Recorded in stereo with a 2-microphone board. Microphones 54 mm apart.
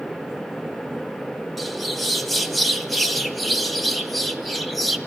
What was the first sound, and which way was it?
A bird, centre (ahead or behind).